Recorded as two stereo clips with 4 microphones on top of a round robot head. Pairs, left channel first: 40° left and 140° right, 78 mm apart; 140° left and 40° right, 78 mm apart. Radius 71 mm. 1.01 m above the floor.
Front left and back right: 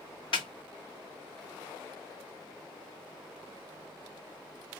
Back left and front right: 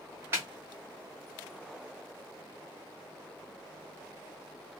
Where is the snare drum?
20° left, 1.5 m.